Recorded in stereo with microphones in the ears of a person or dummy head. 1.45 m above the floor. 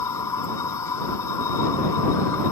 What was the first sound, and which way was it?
A machine running, 20° left (ahead or behind).